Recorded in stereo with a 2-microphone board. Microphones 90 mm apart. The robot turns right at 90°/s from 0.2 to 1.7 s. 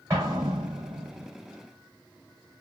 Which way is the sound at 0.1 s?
145° right.